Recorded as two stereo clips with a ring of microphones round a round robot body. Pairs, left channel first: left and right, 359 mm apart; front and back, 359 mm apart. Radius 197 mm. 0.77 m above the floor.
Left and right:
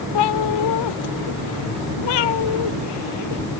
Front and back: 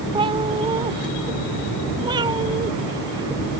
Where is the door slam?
I don't hear a door slam.